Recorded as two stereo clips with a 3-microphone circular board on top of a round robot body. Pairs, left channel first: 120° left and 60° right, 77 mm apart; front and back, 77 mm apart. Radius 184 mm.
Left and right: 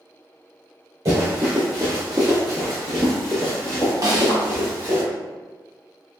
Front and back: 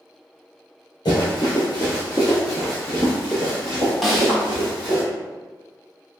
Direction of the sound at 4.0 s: 90° right.